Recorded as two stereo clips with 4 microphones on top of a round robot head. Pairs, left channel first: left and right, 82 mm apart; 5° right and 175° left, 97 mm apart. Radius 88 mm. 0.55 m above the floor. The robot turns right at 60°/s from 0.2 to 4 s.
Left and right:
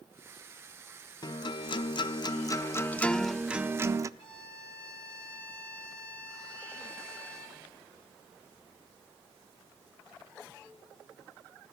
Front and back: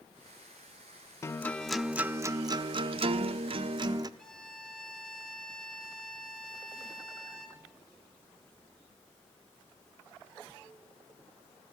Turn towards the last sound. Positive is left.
turn(degrees=80)